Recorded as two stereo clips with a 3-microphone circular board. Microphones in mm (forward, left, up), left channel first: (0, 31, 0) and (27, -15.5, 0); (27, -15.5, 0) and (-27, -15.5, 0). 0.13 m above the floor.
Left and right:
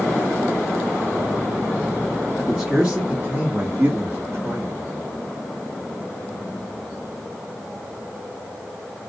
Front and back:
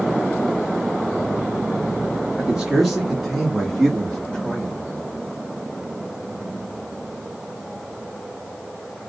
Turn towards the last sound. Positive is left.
turn(degrees=-70)